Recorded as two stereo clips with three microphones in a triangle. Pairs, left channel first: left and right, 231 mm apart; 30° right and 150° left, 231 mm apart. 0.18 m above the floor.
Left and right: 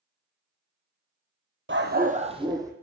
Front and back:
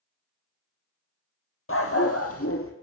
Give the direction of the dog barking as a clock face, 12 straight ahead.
2 o'clock.